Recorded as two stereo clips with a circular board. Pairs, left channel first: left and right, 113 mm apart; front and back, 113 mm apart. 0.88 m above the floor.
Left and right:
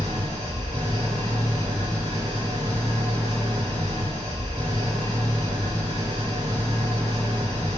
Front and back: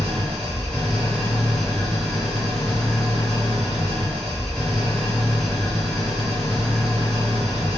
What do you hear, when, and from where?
0.0 s an engine running: 90° left, 1.8 m